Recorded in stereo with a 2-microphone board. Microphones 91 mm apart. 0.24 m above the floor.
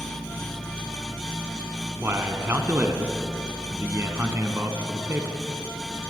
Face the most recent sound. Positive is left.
turn(degrees=-25)  # may be behind; listen again after turning